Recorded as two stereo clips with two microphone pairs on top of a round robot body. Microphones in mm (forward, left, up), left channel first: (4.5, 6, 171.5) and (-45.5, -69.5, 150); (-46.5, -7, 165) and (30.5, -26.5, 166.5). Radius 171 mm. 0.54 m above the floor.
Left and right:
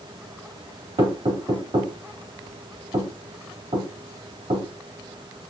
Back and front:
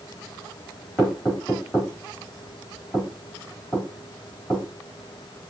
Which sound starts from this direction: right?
Knocking, at 1.0 s.